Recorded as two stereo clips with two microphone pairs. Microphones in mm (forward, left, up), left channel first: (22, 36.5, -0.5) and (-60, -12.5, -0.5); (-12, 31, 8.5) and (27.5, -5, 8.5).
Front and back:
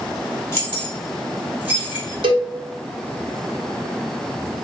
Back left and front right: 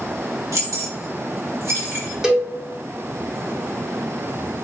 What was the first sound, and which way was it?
Keys jangling, 35° right.